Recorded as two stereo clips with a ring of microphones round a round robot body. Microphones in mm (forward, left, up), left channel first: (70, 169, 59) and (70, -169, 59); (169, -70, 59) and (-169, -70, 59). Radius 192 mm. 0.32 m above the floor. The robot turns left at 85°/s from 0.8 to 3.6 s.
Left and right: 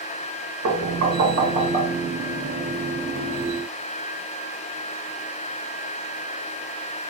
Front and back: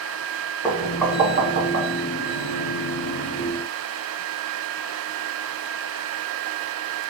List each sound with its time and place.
0.6 s knocking: 75° right, 1.5 m; by 1.9 s 170° right, 1.5 m